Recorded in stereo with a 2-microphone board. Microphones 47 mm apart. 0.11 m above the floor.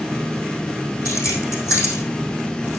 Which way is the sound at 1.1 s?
75° left (ahead or behind).